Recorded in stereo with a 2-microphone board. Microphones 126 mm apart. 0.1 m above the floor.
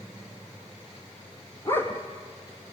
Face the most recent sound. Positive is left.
turn(degrees=15)  # may be behind; listen again after turning